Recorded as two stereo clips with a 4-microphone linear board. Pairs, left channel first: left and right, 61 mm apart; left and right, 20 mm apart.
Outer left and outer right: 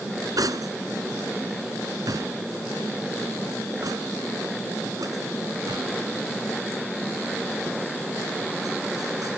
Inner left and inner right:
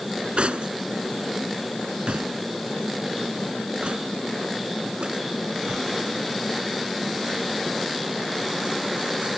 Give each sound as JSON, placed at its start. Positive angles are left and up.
{"t": 0.4, "sound": "cutlery clinking", "side_deg": -75}